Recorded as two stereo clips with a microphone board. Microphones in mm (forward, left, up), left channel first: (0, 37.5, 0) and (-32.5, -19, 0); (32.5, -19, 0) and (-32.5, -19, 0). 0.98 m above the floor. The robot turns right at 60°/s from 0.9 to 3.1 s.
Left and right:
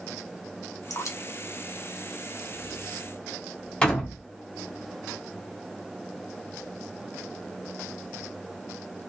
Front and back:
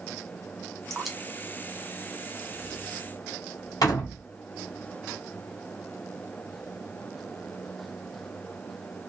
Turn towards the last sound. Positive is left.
turn(degrees=-15)